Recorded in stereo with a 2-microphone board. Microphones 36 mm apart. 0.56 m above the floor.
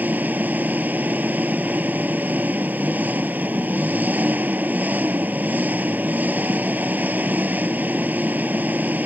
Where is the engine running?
50° right (ahead or behind).